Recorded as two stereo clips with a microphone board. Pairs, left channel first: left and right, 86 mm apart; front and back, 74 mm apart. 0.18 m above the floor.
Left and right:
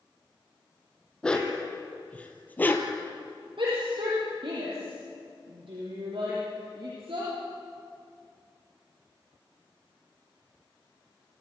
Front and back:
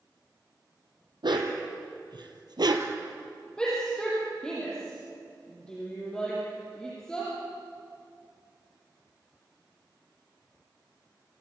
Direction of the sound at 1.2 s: 170° left.